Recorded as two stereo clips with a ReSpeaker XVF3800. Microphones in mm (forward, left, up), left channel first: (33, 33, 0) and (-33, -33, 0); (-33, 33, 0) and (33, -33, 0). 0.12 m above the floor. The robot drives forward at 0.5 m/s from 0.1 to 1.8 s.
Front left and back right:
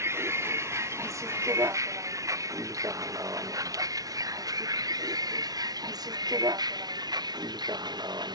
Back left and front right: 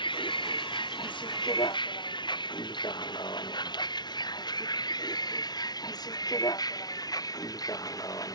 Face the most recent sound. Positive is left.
turn(degrees=-175)